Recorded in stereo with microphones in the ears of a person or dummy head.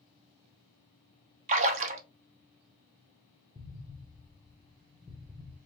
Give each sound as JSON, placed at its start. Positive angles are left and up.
{"t": 1.5, "sound": "a splash", "side_deg": -45, "distance_m": 0.8}
{"t": 3.5, "sound": "an explosion", "side_deg": -5, "distance_m": 1.1}